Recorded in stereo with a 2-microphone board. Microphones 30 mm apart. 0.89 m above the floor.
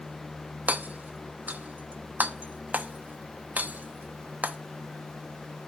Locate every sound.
0.7 s hammering: 65° right (ahead or behind), 1.0 m